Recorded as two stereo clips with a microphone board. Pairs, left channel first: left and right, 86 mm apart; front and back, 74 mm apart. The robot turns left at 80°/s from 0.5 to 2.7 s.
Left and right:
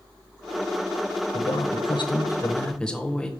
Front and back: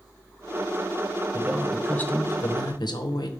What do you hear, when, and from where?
1.3 s a man speaking: 120° left, 0.9 m; by 3.3 s 10° left, 0.9 m